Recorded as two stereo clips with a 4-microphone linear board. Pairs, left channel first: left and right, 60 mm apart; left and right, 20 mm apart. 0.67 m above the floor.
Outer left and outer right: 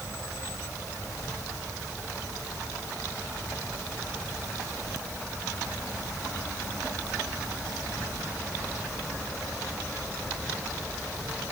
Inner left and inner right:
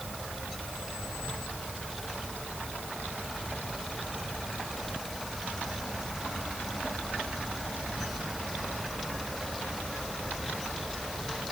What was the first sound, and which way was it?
Only background noise.